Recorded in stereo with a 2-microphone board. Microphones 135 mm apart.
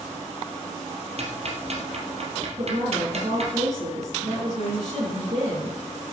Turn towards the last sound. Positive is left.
turn(degrees=-50)  # may be behind; listen again after turning